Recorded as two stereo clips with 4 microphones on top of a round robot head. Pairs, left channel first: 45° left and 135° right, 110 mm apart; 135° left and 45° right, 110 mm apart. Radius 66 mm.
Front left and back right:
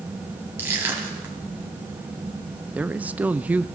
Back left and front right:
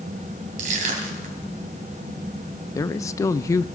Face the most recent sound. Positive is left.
turn(degrees=160)